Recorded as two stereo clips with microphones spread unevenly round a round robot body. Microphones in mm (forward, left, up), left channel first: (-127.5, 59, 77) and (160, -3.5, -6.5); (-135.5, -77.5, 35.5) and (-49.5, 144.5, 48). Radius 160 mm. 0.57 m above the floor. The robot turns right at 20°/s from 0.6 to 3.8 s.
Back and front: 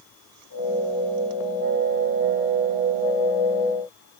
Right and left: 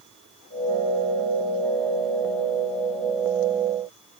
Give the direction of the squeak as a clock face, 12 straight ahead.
No squeak in this recording.